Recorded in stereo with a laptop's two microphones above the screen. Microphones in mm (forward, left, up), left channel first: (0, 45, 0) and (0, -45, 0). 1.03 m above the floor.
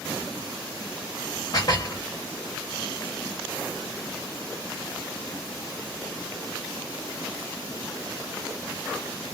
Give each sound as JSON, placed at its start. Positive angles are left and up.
{"t": 1.5, "sound": "dishes clattering", "side_deg": 45, "distance_m": 0.7}